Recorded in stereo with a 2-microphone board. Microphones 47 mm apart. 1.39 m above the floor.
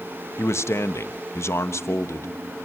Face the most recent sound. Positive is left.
turn(degrees=65)  # may be behind; listen again after turning